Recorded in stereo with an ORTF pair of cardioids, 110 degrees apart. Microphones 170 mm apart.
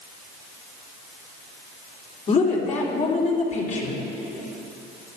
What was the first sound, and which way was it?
A woman speaking, 45° left.